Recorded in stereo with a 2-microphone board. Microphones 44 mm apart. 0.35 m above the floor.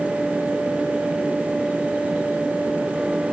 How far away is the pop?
I don't hear a pop.